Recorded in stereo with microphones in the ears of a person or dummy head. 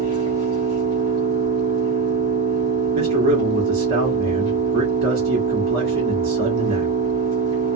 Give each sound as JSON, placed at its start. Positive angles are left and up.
{"t": 0.0, "sound": "an engine running", "side_deg": -20, "distance_m": 1.7}
{"t": 2.9, "sound": "a man speaking", "side_deg": -55, "distance_m": 1.4}